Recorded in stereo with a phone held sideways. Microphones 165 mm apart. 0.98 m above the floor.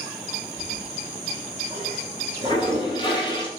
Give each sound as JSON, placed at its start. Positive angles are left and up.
{"t": 0.6, "sound": "a toilet flushing", "side_deg": 30, "distance_m": 5.0}